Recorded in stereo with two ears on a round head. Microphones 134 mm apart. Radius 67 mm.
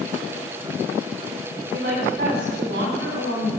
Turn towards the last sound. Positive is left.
turn(degrees=-75)  # may be behind; listen again after turning